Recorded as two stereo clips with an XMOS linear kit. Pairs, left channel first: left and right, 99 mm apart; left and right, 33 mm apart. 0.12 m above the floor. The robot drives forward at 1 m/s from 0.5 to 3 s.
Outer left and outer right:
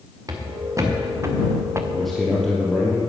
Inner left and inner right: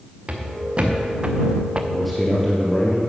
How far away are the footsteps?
About 3 m.